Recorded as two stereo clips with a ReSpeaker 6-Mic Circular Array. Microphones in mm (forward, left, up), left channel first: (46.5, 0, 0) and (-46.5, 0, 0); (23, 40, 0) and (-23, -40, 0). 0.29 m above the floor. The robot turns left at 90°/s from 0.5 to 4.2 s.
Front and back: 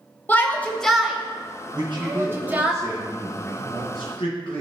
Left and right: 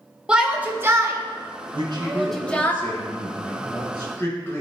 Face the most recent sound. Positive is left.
turn(degrees=-5)